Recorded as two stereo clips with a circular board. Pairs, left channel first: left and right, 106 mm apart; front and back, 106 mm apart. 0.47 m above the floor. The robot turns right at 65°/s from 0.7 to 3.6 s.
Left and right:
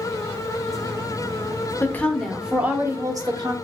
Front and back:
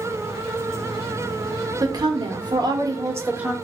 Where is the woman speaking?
145° left, 1.1 m; by 3.5 s 100° right, 1.1 m.